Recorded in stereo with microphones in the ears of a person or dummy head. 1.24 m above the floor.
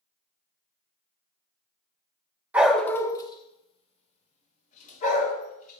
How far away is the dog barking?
About 0.8 m.